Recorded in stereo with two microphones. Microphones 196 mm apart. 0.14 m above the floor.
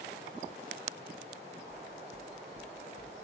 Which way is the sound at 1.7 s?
60° right (ahead or behind).